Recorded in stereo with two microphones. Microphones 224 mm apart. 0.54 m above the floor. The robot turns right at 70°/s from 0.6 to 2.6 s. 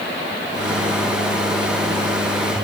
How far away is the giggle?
I don't hear a giggle.